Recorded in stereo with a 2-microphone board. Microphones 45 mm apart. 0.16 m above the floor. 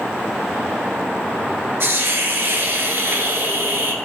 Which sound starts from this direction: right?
A hiss, at 1.8 s.